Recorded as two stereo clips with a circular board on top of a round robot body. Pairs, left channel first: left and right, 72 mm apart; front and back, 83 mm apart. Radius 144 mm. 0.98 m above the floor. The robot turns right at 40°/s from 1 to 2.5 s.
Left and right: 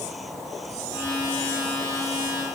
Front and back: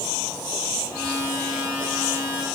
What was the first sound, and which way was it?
Only background noise.